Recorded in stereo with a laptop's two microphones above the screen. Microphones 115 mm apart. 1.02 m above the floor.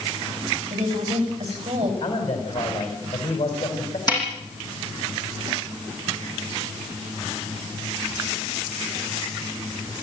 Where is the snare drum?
35° left (ahead or behind), 8.5 m.